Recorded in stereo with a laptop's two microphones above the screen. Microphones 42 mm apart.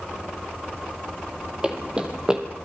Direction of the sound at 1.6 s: 25° right (ahead or behind).